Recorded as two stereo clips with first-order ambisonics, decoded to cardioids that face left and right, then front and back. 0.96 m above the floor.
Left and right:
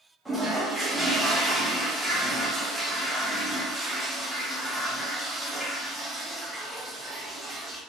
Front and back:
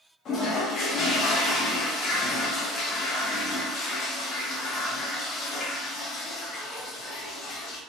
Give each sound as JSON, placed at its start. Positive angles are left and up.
{"t": 0.2, "sound": "a toilet flushing", "azimuth_deg": 5, "distance_m": 0.7}